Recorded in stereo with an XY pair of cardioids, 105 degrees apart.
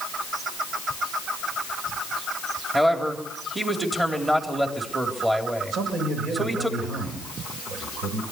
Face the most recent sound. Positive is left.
turn(degrees=-70)